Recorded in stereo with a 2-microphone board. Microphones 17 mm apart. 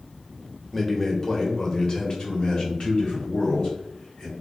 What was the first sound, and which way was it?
A man speaking, 15° left (ahead or behind).